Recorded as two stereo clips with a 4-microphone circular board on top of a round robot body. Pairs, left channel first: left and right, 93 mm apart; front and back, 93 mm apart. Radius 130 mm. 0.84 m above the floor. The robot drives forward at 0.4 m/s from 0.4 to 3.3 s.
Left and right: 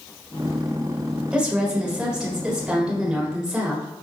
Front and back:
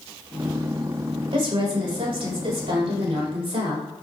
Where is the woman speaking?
170° right, 3 m.